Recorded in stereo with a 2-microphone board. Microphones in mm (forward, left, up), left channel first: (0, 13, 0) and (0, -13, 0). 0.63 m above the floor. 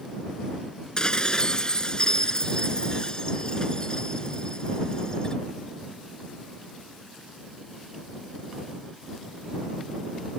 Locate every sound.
1.0 s dishes clattering: 30° left (ahead or behind)